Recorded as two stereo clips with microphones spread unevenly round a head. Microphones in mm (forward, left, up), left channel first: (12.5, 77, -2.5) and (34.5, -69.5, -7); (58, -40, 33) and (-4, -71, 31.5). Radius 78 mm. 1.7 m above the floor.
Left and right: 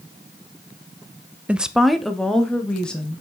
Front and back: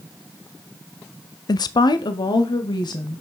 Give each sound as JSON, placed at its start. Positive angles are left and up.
{"t": 1.5, "sound": "a woman speaking", "azimuth_deg": 0, "distance_m": 0.5}